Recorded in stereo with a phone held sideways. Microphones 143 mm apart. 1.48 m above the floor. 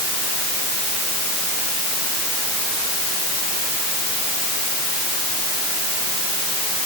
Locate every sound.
Only background noise.